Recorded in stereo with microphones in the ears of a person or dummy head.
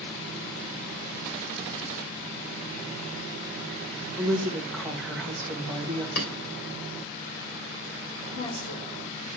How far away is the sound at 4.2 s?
About 1.4 m.